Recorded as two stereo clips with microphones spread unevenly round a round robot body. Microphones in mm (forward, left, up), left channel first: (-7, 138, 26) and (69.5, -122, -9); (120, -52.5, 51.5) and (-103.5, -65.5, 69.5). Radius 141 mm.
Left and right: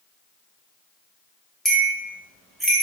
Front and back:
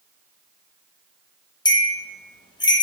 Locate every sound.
1.6 s a bell: straight ahead, 0.6 m